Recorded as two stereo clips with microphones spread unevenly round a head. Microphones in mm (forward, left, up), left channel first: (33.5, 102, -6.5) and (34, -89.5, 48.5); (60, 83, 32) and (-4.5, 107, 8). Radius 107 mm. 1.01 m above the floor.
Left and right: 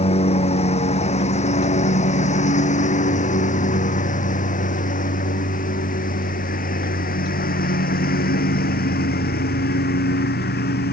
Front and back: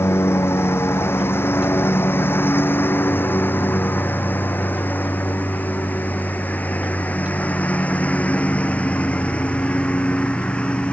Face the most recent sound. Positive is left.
turn(degrees=50)